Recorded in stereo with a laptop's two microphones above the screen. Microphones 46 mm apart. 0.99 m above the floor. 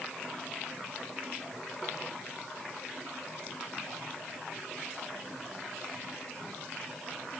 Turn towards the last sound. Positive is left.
No sound to turn to.